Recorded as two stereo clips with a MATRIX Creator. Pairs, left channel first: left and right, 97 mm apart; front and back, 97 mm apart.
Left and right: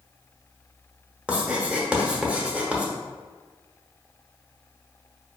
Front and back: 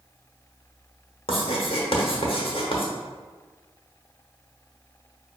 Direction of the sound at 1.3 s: 10° right.